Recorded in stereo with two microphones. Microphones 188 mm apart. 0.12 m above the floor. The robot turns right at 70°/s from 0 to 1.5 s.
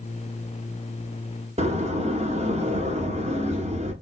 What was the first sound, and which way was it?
A door slam, 35° right (ahead or behind).